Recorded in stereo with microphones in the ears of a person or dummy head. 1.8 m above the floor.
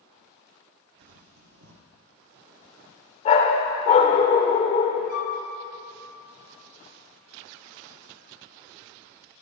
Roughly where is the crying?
I don't hear crying.